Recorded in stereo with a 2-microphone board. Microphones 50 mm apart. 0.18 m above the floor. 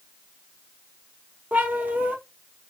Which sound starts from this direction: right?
A cat meowing, at 1.5 s.